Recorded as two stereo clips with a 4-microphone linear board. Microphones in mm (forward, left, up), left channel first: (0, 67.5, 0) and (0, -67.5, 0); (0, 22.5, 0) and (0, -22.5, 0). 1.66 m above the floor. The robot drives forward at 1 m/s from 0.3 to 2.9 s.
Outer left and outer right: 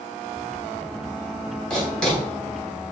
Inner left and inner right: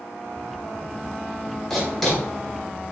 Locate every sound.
1.7 s writing: 10° left (ahead or behind), 4 m; by 2.2 s 5° left (ahead or behind), 4.5 m